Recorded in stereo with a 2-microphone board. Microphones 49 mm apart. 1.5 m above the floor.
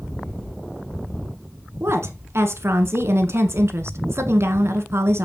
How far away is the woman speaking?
About 1.6 m.